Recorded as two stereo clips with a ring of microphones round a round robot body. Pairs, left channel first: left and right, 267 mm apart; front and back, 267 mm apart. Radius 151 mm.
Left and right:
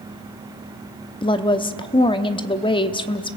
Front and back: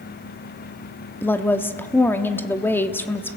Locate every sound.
1.2 s a woman speaking: 65° left, 0.9 m